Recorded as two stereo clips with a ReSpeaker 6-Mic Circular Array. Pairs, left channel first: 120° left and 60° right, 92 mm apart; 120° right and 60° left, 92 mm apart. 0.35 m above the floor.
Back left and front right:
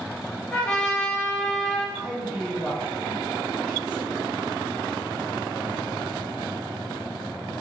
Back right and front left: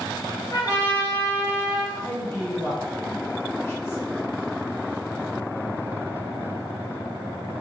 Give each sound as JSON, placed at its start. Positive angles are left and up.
{"t": 0.5, "sound": "a trumpet", "azimuth_deg": -160, "distance_m": 1.4}
{"t": 1.9, "sound": "a man speaking", "azimuth_deg": -125, "distance_m": 1.3}